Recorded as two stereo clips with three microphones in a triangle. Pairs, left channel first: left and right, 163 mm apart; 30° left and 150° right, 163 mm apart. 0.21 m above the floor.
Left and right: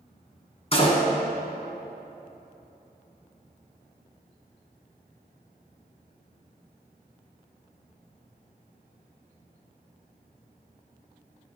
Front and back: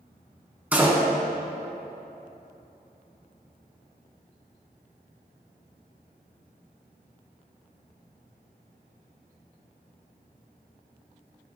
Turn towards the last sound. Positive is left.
turn(degrees=135)